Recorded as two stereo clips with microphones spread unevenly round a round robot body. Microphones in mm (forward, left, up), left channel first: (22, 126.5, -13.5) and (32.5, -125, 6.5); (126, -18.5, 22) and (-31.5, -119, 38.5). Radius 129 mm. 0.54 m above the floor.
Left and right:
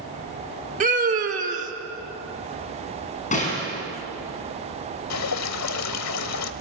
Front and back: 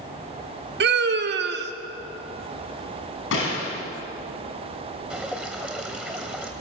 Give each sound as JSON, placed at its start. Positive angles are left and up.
{"t": 0.8, "sound": "a scream", "azimuth_deg": -145, "distance_m": 1.7}
{"t": 3.3, "sound": "a gunshot", "azimuth_deg": 30, "distance_m": 6.0}
{"t": 5.1, "sound": "dripping", "azimuth_deg": 125, "distance_m": 0.8}